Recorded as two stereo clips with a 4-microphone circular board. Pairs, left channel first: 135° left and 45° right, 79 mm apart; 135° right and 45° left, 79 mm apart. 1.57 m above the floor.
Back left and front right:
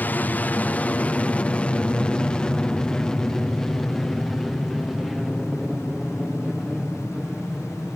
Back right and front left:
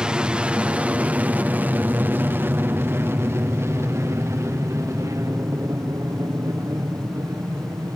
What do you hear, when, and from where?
0.0 s an aircraft: 110° left; by 8.0 s 30° left